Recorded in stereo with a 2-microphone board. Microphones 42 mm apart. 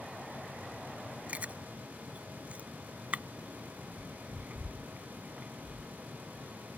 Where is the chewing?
35° right (ahead or behind).